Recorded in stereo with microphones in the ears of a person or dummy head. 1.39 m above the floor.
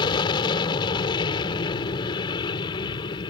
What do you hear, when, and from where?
0.0 s an aircraft: 25° left (ahead or behind)